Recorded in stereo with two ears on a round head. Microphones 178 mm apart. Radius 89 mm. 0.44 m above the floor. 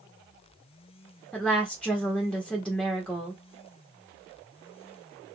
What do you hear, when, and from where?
1.3 s a woman speaking: 5° left (ahead or behind), 1.1 m